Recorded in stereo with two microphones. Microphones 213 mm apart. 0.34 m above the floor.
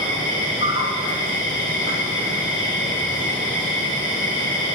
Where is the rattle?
I don't hear a rattle.